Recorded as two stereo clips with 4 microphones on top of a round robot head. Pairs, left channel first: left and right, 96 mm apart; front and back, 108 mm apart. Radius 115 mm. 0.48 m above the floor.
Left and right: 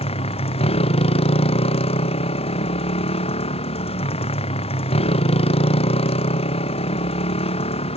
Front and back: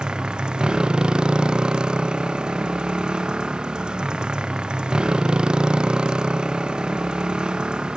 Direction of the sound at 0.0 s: 100° left.